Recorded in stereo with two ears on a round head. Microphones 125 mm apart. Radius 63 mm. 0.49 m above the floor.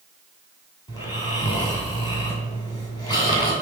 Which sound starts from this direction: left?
Snoring, at 0.9 s.